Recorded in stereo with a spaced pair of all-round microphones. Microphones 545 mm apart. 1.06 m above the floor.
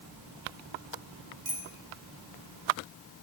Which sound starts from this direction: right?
A bicycle bell, at 1.4 s.